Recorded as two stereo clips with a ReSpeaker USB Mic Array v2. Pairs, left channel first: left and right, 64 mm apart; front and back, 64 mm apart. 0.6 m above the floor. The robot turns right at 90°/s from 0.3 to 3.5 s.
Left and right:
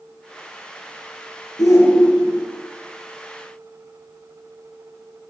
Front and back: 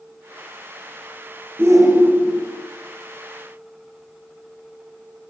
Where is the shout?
120° left, 8.5 m; by 2.5 s 155° right, 8.5 m.